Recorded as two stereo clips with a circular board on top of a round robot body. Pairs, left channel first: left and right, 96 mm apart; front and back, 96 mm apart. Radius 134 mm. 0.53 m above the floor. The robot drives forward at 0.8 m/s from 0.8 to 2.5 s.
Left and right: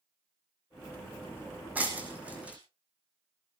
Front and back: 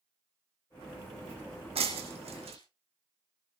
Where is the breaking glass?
165° right, 3 m; by 2.6 s 170° right, 3.5 m.